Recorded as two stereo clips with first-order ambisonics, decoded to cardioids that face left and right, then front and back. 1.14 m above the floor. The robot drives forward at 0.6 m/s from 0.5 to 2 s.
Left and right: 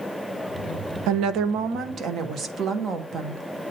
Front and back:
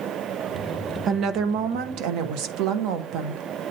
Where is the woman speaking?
115° right, 0.5 m; by 3.4 s 150° right, 0.9 m.